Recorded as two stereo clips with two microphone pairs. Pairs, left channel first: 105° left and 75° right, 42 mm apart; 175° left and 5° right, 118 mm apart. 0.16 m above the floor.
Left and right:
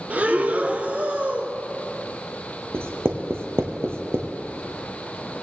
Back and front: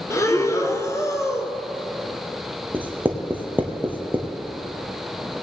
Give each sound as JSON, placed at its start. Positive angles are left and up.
{"t": 0.1, "sound": "breathing", "azimuth_deg": -125, "distance_m": 0.8}
{"t": 2.7, "sound": "writing", "azimuth_deg": -80, "distance_m": 1.4}